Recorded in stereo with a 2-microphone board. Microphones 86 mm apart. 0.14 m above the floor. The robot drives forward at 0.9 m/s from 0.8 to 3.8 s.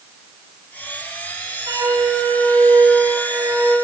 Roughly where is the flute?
Right.